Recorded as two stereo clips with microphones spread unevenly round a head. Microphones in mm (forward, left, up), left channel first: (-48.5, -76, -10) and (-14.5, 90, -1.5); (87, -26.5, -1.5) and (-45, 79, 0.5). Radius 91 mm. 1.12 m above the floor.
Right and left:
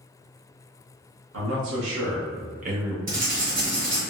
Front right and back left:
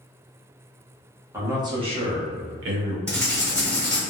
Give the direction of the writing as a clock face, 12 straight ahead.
10 o'clock.